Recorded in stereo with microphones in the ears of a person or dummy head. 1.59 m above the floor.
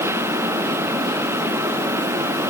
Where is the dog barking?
No dog barking in this recording.